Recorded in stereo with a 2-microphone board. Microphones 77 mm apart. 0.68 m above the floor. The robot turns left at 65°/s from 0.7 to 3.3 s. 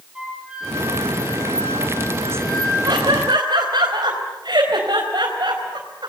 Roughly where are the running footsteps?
I don't hear running footsteps.